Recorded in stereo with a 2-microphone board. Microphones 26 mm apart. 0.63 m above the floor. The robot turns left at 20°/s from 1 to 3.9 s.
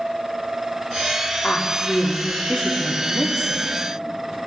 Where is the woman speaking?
65° left, 1.0 m; by 3.6 s 25° left, 1.0 m.